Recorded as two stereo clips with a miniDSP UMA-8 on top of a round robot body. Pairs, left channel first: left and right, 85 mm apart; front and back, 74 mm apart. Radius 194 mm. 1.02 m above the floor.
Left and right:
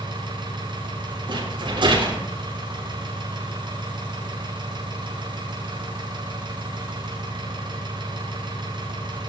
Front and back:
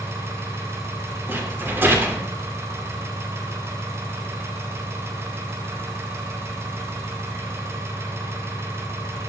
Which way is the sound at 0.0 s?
125° right.